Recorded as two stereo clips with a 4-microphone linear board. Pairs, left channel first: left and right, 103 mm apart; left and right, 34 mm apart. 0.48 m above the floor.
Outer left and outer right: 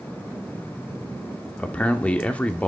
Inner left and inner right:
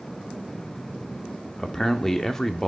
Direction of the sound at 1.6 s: 15° left (ahead or behind).